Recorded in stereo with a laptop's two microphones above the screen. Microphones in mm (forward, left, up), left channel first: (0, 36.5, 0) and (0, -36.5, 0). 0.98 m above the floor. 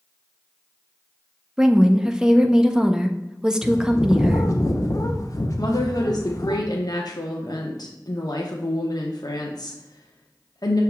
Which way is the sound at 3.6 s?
50° left (ahead or behind).